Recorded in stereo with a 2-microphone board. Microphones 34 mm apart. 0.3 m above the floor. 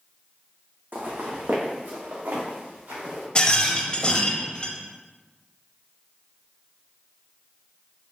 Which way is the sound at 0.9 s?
75° right (ahead or behind).